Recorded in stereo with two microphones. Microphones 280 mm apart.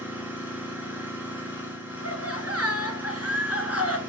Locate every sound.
0.0 s an engine running: 5° right (ahead or behind), 3.5 m
2.0 s laughter: 60° right (ahead or behind), 2.5 m